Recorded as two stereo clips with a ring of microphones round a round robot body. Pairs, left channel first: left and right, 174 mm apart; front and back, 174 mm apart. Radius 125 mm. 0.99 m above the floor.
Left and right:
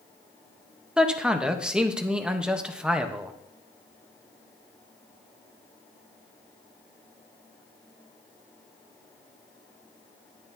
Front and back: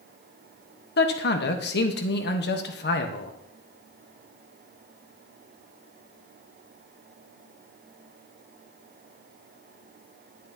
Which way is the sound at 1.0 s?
5° right.